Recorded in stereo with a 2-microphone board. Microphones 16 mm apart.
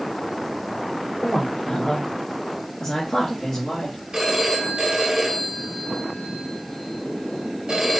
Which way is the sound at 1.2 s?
65° left (ahead or behind).